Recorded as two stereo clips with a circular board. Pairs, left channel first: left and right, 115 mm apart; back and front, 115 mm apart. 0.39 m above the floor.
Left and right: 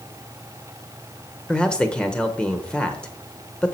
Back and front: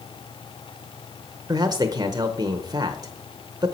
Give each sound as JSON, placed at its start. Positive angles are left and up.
{"t": 1.5, "sound": "a man speaking", "azimuth_deg": 15, "distance_m": 0.9}